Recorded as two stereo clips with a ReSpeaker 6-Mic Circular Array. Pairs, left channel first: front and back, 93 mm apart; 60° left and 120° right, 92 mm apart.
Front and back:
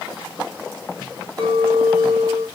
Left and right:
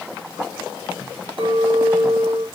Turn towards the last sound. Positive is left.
turn(degrees=-135)